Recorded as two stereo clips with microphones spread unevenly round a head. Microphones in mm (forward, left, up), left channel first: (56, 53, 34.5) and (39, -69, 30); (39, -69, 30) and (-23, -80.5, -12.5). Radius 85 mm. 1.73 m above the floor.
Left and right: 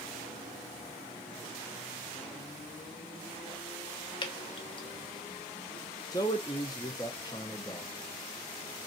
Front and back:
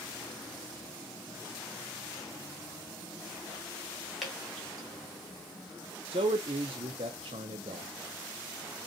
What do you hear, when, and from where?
4.2 s dripping: 55° left, 0.7 m
6.1 s a man speaking: 145° left, 0.5 m